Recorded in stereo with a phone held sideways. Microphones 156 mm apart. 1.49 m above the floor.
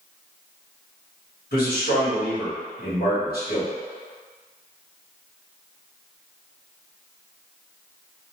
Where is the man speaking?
70° left (ahead or behind), 1.5 m.